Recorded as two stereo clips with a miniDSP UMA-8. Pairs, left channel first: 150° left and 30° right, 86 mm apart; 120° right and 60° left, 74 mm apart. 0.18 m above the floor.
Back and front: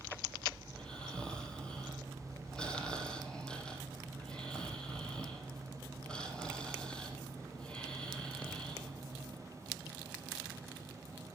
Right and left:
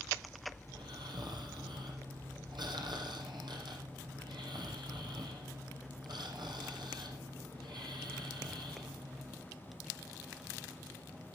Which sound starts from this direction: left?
Snoring, at 0.7 s.